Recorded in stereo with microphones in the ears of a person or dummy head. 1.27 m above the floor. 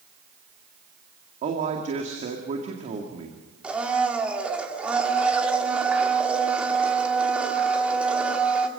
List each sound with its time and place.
1.4 s a man speaking: 45° right (ahead or behind), 2 m
3.6 s a blender: 5° right (ahead or behind), 2.5 m